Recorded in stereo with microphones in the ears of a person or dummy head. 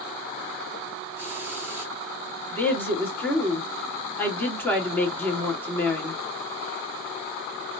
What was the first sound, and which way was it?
A hiss, 20° right (ahead or behind).